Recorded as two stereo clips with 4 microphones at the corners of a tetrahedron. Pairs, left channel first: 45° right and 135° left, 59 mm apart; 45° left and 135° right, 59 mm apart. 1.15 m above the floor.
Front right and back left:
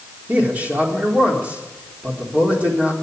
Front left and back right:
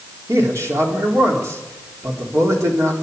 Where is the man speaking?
160° right, 3.5 m.